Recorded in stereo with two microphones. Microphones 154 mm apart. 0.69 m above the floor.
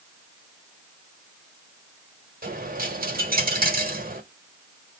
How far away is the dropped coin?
About 1.1 m.